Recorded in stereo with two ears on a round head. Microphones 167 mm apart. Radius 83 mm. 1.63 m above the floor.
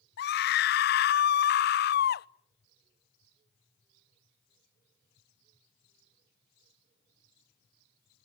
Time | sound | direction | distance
0.2 | a scream | 55° left (ahead or behind) | 0.5 m